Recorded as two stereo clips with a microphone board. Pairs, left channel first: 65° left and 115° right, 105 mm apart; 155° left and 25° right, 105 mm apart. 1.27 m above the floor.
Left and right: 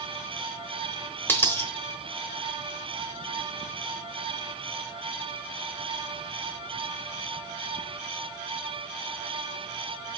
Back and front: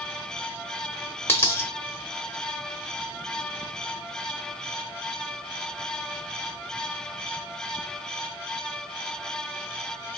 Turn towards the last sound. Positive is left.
turn(degrees=120)